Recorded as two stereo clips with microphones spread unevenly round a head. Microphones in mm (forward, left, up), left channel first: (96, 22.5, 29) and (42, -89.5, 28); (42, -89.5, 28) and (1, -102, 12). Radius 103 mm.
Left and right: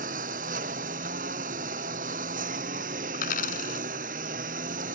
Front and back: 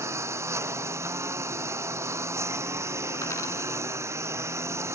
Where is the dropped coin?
65° left.